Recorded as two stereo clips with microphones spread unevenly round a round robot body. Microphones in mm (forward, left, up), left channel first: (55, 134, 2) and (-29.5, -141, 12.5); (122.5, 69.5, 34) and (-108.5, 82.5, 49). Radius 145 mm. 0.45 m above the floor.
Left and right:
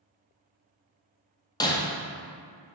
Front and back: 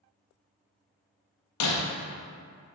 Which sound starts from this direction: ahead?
Breaking glass, at 1.6 s.